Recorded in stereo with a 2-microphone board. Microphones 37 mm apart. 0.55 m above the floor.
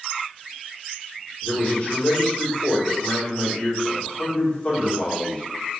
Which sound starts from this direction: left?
A man speaking, at 1.4 s.